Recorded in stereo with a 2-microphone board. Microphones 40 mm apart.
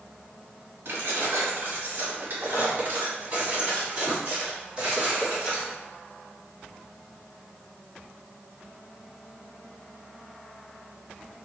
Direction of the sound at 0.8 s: 65° right (ahead or behind).